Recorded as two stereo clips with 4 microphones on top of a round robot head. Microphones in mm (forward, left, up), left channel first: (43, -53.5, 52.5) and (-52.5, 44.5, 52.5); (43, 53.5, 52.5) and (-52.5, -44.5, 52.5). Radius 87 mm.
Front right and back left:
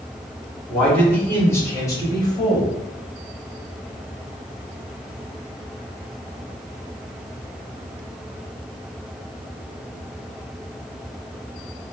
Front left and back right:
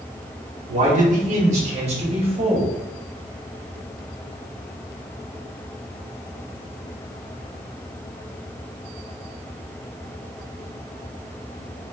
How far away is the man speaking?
About 2 m.